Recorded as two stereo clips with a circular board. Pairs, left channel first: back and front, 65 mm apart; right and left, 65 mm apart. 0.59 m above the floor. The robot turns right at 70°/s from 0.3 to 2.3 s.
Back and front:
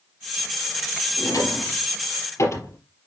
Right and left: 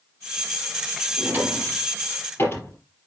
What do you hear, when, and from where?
1.2 s a drawer: 140° left, 4.5 m; by 2.8 s 140° right, 4.5 m